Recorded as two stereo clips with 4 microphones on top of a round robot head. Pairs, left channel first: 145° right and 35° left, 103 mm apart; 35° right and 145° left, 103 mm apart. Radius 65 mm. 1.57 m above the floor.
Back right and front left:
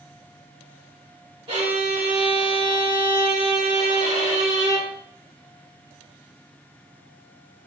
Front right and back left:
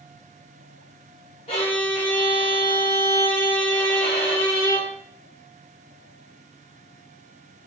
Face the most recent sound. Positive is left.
turn(degrees=-5)